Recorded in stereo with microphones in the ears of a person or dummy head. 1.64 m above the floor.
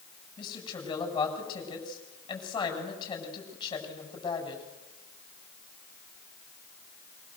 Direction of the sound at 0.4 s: 25° left (ahead or behind).